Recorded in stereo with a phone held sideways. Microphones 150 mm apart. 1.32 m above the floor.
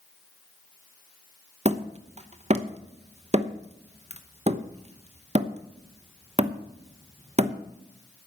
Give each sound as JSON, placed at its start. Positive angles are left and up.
{"t": 1.6, "sound": "hammering", "side_deg": -45, "distance_m": 0.9}